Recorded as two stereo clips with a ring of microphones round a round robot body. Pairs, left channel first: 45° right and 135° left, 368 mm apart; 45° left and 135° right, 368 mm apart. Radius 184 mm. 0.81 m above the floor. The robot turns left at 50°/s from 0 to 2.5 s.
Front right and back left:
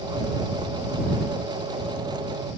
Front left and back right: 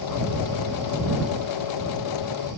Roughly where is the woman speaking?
No woman speaking in this recording.